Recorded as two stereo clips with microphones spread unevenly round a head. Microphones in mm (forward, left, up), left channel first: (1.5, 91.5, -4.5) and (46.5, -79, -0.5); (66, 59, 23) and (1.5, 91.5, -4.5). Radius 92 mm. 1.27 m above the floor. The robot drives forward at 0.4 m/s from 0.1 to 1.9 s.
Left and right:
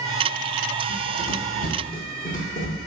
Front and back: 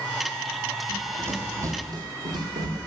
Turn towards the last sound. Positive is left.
turn(degrees=145)